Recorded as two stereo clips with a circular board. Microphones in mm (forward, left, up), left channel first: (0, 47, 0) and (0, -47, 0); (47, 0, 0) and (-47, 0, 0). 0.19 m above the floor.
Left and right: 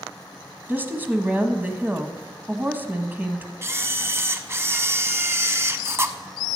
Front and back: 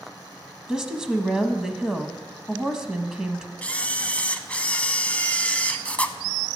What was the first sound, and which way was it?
A woman speaking, 110° right.